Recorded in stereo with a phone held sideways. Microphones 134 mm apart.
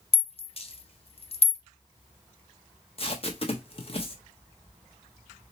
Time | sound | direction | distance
0.1 | a rattle | 45° left (ahead or behind) | 0.5 m
3.0 | tape being pulled | 40° left (ahead or behind) | 0.8 m